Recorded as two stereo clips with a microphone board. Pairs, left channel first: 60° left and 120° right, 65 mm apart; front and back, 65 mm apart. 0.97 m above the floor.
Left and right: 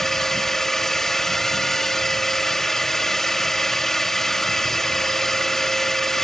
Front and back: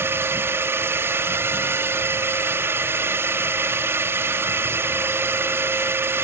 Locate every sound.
0.0 s a drone: 145° left